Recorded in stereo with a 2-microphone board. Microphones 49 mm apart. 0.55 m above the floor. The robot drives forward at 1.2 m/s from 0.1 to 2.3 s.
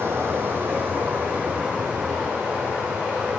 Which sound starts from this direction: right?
Running water, at 0.0 s.